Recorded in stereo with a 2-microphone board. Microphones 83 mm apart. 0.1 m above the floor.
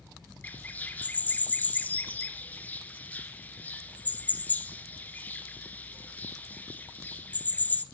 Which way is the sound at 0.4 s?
20° left (ahead or behind).